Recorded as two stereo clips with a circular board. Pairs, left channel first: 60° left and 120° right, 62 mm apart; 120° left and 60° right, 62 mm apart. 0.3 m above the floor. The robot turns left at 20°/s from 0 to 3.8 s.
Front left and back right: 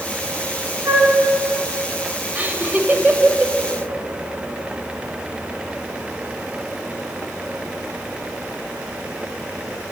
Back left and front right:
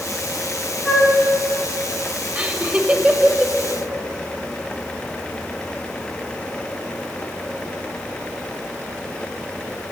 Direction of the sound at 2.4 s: 90° right.